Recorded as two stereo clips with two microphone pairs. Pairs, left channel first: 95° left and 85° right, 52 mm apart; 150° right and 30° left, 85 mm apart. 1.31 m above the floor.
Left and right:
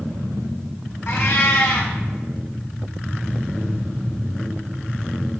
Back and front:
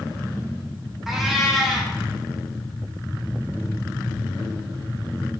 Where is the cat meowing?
115° left, 0.7 m.